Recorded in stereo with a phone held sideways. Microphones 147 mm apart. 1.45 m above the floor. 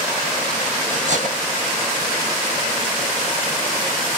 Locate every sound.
0.9 s cutlery clinking: 55° right (ahead or behind), 1.4 m